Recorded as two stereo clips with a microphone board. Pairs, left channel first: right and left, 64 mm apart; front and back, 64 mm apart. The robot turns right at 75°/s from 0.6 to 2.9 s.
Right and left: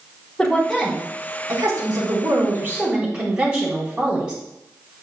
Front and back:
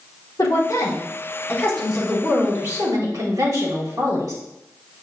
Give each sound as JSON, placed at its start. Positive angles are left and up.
{"t": 0.4, "sound": "a woman speaking", "azimuth_deg": -5, "distance_m": 3.5}